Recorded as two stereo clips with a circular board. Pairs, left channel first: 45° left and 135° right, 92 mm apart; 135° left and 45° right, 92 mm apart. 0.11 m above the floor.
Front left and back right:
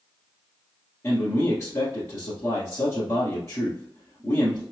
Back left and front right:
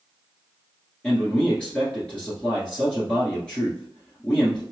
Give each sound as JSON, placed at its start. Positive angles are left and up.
{"t": 1.0, "sound": "a man speaking", "azimuth_deg": 65, "distance_m": 1.3}